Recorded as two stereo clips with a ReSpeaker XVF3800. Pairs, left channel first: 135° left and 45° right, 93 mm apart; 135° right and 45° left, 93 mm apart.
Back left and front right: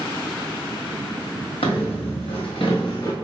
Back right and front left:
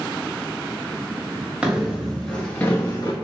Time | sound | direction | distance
1.6 | footsteps | 120° left | 1.1 m